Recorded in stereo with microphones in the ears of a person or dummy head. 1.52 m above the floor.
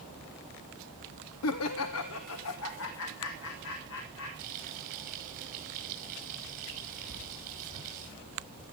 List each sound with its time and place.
1.4 s laughter: 85° left, 0.7 m; by 4.3 s 75° left (ahead or behind), 4.5 m
4.4 s frying: 50° right (ahead or behind), 5.5 m
7.1 s writing: 30° right (ahead or behind), 3 m